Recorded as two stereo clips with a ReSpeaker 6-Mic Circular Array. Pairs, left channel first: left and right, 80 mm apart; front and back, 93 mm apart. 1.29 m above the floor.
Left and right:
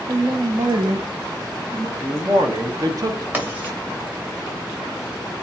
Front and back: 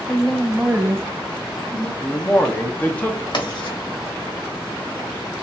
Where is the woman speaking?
85° right, 0.7 m; by 1.9 s 145° right, 1.0 m.